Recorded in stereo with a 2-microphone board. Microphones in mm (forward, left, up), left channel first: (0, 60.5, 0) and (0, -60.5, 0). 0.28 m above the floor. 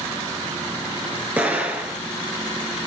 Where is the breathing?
I don't hear breathing.